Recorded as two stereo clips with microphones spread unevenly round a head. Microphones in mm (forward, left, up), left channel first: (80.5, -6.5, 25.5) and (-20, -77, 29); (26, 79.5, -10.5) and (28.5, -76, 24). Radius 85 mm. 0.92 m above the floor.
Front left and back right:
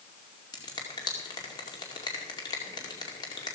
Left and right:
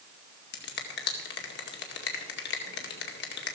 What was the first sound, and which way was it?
A finger snap, 100° left.